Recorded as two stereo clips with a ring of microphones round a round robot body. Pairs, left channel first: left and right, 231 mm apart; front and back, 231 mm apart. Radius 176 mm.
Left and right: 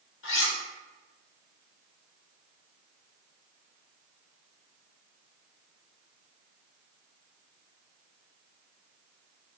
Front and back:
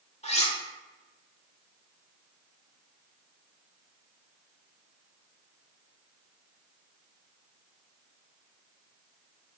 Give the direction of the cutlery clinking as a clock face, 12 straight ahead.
10 o'clock.